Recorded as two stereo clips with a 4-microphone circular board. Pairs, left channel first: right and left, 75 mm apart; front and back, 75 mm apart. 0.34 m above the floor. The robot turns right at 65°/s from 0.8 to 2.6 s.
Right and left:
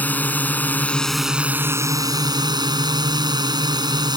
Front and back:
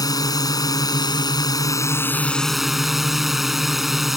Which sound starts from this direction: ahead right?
A drone, at 0.0 s.